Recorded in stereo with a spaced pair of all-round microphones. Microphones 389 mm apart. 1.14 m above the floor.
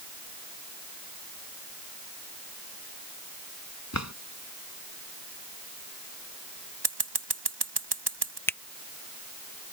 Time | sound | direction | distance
3.9 | a drawer | 45° left (ahead or behind) | ?
6.8 | scissors | 80° right | ?
8.5 | a finger snap | 5° left (ahead or behind) | ?